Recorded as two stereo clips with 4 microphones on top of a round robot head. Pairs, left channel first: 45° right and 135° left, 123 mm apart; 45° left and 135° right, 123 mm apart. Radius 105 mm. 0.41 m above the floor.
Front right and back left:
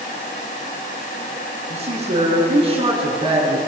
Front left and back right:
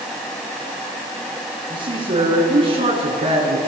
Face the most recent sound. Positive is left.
turn(degrees=-170)